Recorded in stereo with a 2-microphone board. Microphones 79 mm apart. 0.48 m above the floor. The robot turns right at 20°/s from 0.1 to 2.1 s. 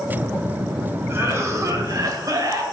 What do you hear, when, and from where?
1.1 s a cough: 30° right (ahead or behind), 1.9 m; by 2.6 s 50° right (ahead or behind), 1.9 m